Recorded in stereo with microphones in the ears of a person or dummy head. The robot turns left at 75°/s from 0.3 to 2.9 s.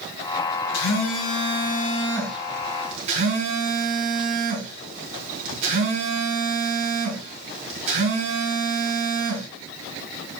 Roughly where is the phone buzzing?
Behind left.